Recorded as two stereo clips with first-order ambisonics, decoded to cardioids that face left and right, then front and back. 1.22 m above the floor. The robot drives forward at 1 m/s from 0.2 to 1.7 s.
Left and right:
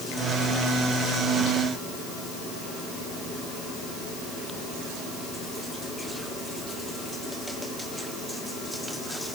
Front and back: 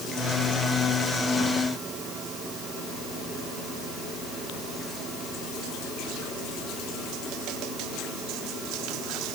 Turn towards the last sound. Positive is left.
No sound to turn to.